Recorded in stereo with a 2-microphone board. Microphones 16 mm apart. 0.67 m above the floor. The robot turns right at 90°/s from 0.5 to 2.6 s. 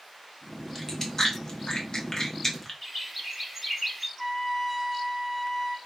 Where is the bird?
5° right (ahead or behind), 1.0 m.